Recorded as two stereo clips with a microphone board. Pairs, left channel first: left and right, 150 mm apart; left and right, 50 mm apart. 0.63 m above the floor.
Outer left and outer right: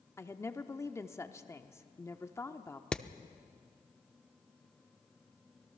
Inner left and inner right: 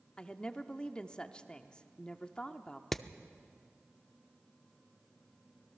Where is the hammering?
5° left (ahead or behind), 0.6 m.